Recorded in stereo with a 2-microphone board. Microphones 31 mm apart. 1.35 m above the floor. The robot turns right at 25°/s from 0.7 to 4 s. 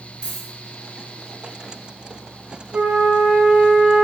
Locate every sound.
0.2 s a dropped coin: 15° left (ahead or behind), 1.6 m
2.7 s a flute: 75° right, 0.8 m; by 4.0 s 45° right, 0.8 m